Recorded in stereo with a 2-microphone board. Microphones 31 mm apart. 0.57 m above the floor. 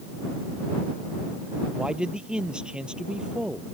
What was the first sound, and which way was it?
A man speaking, 30° right (ahead or behind).